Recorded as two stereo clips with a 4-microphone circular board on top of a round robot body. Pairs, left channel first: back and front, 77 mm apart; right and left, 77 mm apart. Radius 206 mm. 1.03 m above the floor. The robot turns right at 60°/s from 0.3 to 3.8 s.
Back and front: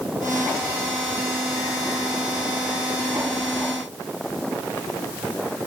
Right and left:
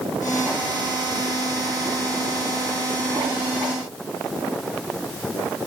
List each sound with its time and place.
Only background noise.